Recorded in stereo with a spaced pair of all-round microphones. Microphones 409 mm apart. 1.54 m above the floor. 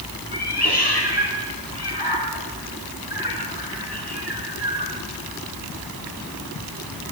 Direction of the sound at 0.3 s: 70° left (ahead or behind).